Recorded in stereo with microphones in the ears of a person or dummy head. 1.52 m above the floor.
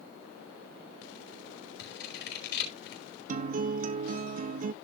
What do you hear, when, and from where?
1.8 s scissors: 65° left (ahead or behind), 5 m
3.3 s a guitar: 40° right (ahead or behind), 0.6 m